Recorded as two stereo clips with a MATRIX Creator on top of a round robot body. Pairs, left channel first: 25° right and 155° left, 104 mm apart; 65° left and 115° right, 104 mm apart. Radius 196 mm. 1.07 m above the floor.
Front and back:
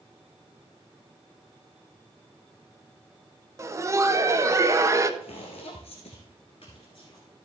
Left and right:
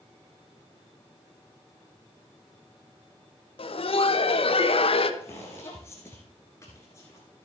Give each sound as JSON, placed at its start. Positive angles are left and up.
{"t": 3.6, "sound": "laughter", "azimuth_deg": 95, "distance_m": 1.2}
{"t": 5.2, "sound": "footsteps", "azimuth_deg": 0, "distance_m": 1.6}